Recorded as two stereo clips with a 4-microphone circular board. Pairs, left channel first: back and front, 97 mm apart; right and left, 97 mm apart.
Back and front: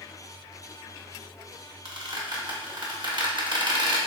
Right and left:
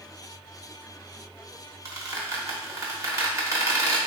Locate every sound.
1.9 s a squeak: 35° left, 0.8 m